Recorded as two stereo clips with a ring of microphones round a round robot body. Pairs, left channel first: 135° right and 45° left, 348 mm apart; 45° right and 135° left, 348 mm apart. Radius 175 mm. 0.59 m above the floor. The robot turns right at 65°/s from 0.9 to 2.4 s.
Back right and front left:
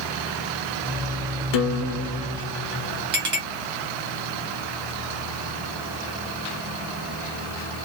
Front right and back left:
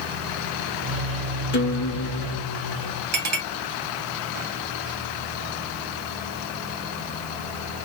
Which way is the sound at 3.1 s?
85° left.